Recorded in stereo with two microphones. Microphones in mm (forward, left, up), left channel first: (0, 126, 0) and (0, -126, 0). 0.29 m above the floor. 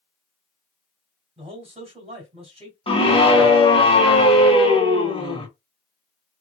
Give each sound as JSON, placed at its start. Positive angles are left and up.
{"t": 1.4, "sound": "a man speaking", "side_deg": -20, "distance_m": 2.0}
{"t": 2.9, "sound": "a scream", "side_deg": 20, "distance_m": 0.9}